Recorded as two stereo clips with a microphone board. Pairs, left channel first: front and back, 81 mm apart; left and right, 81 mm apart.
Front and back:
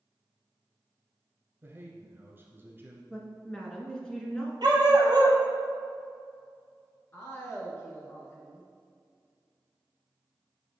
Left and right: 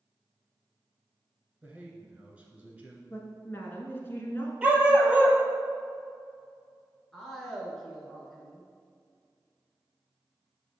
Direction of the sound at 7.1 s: 10° left.